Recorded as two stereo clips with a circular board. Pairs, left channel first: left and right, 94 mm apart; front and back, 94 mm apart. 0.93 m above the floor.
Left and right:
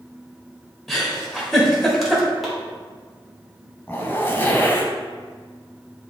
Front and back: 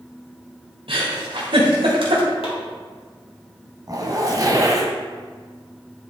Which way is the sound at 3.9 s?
150° left.